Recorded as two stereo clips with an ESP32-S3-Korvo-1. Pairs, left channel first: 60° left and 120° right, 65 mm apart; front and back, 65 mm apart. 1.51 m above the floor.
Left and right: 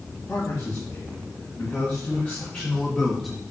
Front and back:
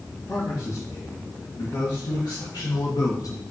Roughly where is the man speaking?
Ahead.